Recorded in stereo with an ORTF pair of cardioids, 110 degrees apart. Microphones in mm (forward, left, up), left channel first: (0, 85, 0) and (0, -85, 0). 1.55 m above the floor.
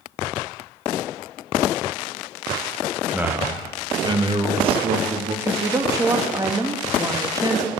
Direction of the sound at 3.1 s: 5° right.